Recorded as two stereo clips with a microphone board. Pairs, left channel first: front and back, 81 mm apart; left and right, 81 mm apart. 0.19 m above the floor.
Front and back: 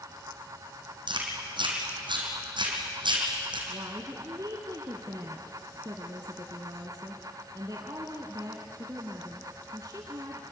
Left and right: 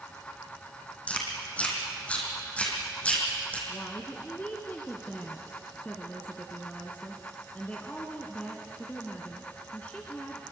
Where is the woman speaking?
160° left, 1.8 m.